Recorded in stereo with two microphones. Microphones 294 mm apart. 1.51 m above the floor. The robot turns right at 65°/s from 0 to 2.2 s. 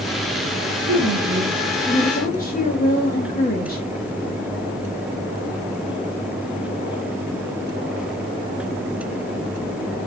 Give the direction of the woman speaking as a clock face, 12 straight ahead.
2 o'clock.